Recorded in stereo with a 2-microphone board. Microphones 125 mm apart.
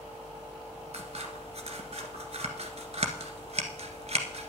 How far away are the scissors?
About 1.5 m.